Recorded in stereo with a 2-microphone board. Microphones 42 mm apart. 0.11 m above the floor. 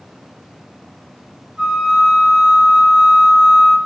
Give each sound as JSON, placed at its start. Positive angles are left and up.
{"t": 1.6, "sound": "a flute", "side_deg": -25, "distance_m": 1.4}